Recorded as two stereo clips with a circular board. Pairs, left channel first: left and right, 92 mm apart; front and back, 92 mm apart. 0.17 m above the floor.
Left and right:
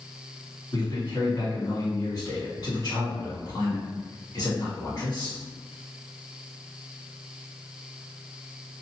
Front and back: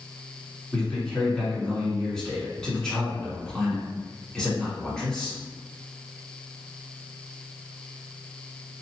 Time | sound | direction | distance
0.7 | a man speaking | 85° left | 1.7 m